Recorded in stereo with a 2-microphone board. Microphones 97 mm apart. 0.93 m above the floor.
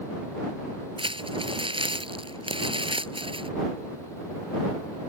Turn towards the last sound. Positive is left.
turn(degrees=-65)  # may be behind; listen again after turning